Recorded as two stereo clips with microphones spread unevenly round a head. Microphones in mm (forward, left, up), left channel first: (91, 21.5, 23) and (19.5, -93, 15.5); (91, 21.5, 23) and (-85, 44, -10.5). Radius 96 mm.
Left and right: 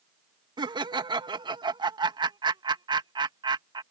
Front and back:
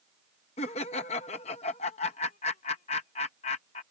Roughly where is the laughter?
Ahead right.